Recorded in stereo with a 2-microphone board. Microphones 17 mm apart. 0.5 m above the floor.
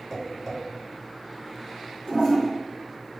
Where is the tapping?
5° left (ahead or behind), 1.8 m.